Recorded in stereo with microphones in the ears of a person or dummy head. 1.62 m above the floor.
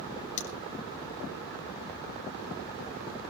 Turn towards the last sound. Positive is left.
turn(degrees=45)  # may be behind; listen again after turning